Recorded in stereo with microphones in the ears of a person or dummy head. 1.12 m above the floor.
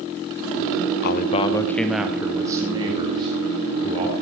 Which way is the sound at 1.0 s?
55° left (ahead or behind).